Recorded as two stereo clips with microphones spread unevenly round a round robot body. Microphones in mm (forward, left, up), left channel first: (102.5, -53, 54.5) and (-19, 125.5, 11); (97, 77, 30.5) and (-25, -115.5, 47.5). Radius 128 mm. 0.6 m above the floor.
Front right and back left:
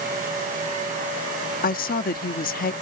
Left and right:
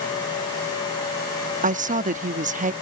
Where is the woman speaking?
90° right.